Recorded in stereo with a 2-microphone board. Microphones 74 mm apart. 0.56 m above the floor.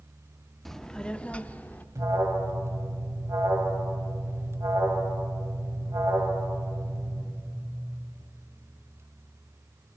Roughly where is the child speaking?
Centre.